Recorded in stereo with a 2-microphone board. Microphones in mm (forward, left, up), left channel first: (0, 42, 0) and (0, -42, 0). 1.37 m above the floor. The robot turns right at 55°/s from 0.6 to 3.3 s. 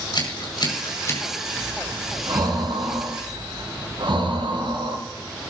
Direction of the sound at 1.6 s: 170° right.